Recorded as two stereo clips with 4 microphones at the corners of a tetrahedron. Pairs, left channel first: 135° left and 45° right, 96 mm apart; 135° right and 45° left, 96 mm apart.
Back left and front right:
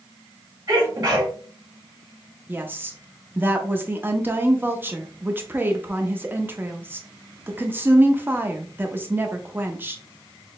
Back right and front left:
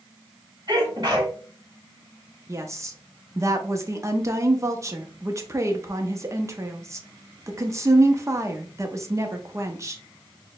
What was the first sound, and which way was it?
A sneeze, 5° left.